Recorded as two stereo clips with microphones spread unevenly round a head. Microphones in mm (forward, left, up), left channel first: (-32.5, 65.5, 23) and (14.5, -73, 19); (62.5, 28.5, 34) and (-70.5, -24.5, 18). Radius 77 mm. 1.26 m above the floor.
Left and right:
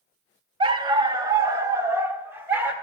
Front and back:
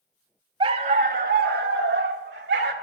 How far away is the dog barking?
About 0.7 m.